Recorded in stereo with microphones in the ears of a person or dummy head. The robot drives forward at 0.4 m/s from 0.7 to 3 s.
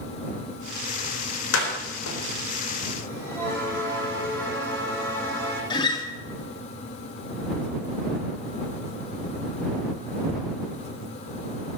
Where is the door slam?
85° left, 4 m.